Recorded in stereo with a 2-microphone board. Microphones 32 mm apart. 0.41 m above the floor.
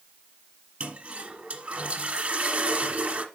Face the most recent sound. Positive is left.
turn(degrees=-45)  # may be behind; listen again after turning